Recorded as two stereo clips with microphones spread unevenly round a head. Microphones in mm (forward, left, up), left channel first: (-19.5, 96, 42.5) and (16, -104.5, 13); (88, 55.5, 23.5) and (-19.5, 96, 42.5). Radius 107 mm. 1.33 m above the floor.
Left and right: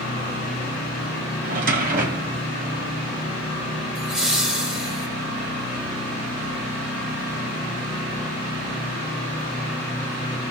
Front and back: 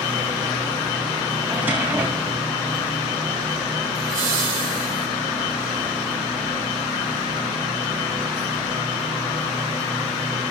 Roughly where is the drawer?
Behind right.